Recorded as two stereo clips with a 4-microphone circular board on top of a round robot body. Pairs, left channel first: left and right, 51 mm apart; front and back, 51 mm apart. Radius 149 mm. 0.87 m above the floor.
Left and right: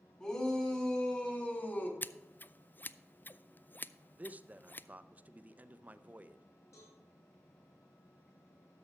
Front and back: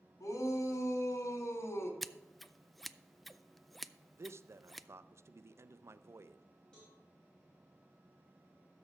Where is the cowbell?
75° left, 3 m.